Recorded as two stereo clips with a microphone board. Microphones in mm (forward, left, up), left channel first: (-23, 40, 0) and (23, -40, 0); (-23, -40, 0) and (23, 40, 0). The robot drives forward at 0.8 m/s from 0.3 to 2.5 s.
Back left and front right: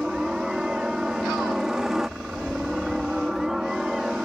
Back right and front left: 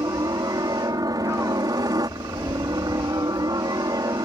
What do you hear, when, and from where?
0.0 s a helicopter: 25° left